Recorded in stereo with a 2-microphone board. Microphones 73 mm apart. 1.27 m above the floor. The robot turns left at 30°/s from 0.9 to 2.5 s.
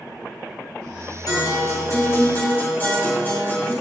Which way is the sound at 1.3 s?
65° left.